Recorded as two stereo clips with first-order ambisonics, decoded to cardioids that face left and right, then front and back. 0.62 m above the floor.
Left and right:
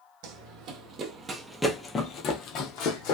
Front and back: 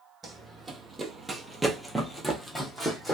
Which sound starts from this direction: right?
Running footsteps, at 0.2 s.